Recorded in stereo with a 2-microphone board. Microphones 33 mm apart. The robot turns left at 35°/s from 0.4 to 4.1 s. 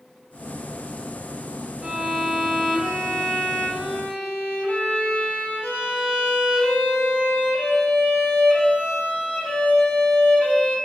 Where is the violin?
150° right, 1.1 m; by 10.8 s 130° left, 1.1 m.